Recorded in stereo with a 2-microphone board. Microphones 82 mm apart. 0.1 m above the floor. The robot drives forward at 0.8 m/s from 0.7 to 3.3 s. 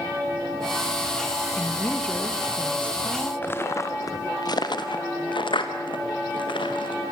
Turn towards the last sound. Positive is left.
turn(degrees=80)